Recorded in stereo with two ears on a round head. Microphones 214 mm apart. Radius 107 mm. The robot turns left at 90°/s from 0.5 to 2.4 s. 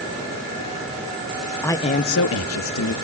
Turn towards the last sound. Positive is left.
turn(degrees=105)